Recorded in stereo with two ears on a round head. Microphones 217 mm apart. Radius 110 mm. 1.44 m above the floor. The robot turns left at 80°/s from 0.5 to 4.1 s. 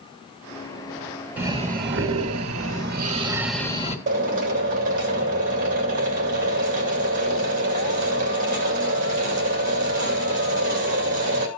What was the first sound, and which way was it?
Breathing, 5° right.